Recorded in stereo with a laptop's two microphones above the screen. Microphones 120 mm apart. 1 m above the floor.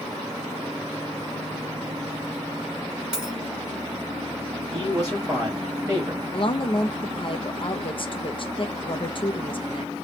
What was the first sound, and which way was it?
A dropped coin, 5° right (ahead or behind).